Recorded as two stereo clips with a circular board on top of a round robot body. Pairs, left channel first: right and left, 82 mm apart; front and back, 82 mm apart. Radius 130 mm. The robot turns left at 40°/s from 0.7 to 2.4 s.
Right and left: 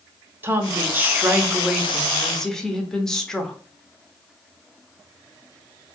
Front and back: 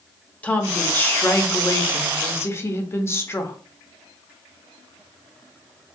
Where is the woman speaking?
55° left, 0.6 m; by 3.6 s 10° right, 0.6 m.